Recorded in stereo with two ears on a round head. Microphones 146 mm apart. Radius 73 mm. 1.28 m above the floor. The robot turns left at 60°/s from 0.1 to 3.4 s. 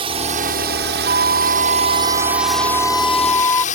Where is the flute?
60° right; by 3.6 s 160° left.